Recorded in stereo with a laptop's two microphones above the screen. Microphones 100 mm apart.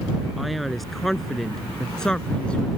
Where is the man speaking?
Centre (ahead or behind); by 2.7 s 10° left (ahead or behind).